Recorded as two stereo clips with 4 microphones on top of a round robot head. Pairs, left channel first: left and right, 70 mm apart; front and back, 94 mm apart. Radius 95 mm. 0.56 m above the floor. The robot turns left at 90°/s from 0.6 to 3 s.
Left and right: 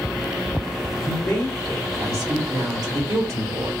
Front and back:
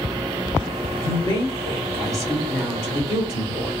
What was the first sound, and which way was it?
A woman speaking, 60° left.